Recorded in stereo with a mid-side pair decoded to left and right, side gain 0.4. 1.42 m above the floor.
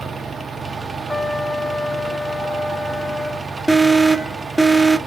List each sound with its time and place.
0.0 s a fan: 35° right, 0.8 m
1.1 s a trumpet: 20° left, 0.9 m
3.7 s an alarm: 15° right, 1.0 m